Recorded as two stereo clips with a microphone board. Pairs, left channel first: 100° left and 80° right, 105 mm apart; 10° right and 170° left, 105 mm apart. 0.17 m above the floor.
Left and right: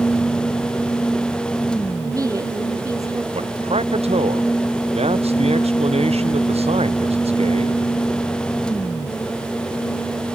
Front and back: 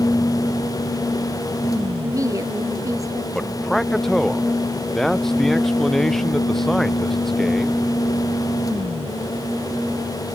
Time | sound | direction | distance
2.0 | a woman speaking | 135° right | ?
3.3 | a man speaking | 95° right | ?